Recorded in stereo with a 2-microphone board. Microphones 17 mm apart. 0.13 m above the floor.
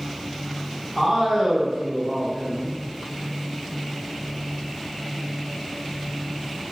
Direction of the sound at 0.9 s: 20° right (ahead or behind).